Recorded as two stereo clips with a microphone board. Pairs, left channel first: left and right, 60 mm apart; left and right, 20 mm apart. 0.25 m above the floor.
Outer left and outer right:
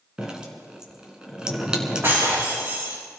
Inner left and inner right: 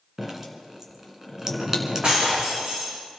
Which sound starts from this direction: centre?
Dripping, at 0.2 s.